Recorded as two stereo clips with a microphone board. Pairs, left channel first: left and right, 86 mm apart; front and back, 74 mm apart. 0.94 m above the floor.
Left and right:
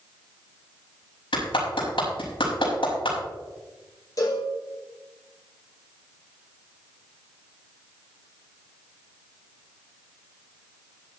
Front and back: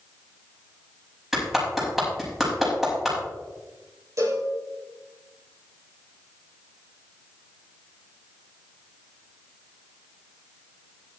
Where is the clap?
95° left, 5 m.